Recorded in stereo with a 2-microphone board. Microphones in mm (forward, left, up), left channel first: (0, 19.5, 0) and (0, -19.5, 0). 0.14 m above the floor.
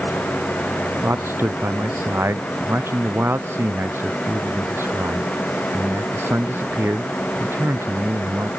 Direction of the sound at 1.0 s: 85° right.